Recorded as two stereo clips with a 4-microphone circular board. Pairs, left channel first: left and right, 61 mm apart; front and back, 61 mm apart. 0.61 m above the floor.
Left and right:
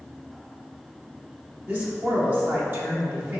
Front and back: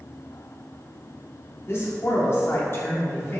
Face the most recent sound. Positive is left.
turn(degrees=-40)